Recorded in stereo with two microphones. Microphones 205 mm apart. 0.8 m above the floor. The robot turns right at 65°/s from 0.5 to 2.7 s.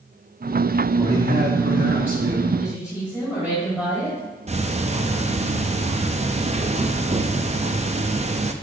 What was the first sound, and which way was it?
A man speaking, 160° right.